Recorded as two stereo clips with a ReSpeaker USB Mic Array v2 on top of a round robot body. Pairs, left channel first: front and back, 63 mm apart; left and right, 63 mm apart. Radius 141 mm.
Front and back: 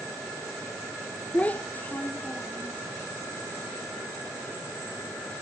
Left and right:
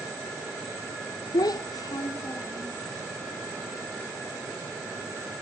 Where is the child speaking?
70° left, 0.5 m; by 2.8 s 60° left, 1.6 m.